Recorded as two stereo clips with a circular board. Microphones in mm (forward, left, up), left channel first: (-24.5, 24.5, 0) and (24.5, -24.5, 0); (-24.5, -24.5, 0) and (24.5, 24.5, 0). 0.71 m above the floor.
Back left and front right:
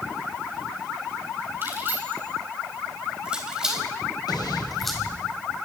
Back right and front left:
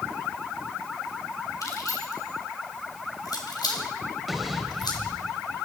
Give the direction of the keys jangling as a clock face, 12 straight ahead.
3 o'clock.